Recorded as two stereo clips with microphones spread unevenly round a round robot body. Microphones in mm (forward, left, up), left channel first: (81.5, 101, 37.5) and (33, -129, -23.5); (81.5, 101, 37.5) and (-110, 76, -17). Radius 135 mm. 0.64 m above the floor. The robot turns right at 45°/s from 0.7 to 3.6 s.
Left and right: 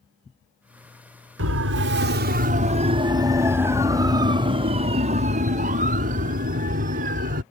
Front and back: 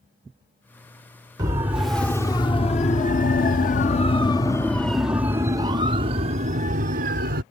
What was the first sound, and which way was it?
A siren, 110° right.